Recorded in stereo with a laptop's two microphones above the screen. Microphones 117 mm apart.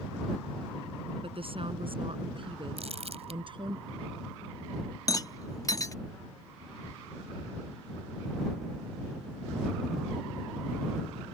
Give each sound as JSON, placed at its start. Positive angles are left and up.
{"t": 1.2, "sound": "a woman speaking", "side_deg": -50}
{"t": 2.8, "sound": "crumpling", "side_deg": -60}
{"t": 5.1, "sound": "a rattle", "side_deg": 30}